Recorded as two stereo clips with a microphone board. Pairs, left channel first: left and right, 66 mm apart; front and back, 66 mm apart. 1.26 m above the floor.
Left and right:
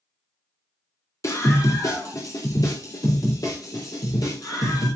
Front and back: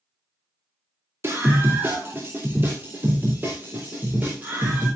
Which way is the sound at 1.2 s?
130° left.